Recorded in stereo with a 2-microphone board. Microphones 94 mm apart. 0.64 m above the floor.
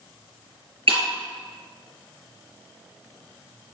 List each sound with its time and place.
0.9 s breaking glass: 80° right, 4.5 m